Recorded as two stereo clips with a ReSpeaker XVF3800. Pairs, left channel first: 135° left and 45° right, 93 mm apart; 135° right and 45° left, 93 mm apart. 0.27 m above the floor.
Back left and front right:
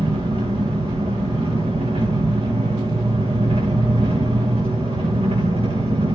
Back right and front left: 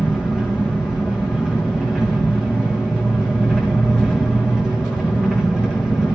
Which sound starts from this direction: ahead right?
An engine running, at 0.0 s.